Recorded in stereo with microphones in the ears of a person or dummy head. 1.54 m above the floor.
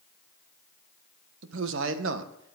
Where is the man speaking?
75° right (ahead or behind), 1.4 m.